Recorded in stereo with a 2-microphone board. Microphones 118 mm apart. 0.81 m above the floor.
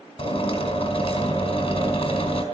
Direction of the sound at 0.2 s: 45° left (ahead or behind).